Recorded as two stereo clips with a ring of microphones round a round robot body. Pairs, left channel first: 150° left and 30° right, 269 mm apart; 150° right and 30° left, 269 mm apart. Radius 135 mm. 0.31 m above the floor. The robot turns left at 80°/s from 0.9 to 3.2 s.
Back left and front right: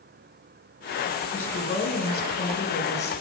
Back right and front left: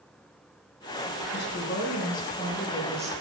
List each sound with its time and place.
1.3 s a woman speaking: 125° right, 1.3 m; by 3.1 s 95° left, 1.3 m